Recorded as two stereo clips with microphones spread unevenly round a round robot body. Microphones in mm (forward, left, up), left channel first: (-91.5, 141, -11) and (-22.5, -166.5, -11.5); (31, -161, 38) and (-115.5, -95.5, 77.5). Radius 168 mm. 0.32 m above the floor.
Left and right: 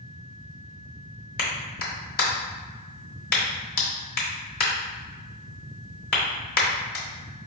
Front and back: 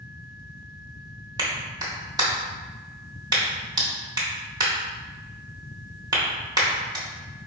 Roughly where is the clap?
Left.